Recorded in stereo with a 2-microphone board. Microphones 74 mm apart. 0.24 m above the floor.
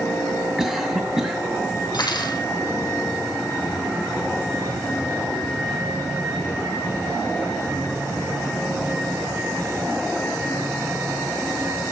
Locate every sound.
0.6 s a cough: 5° right (ahead or behind), 2.0 m
1.9 s cutlery clinking: 65° left (ahead or behind), 5 m